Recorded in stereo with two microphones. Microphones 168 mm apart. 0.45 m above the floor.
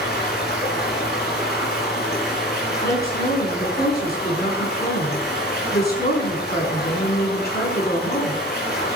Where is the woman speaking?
70° left (ahead or behind), 4.5 m.